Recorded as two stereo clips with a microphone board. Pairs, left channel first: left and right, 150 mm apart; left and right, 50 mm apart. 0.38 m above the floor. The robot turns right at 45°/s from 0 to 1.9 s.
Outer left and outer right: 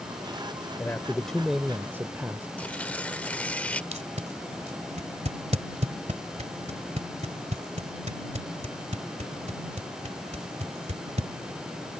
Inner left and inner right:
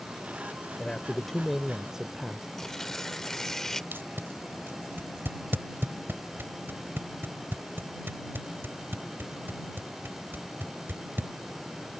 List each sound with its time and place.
0.8 s a man speaking: 150° left; by 2.5 s 160° right
2.6 s tearing paper: 10° left (ahead or behind)
3.9 s tape being pulled: 50° right (ahead or behind)